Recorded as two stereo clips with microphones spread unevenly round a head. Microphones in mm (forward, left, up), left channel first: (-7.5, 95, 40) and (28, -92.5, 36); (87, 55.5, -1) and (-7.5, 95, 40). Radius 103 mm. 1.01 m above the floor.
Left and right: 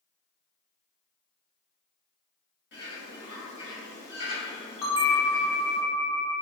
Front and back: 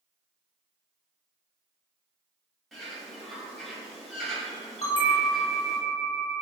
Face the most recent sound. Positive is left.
turn(degrees=25)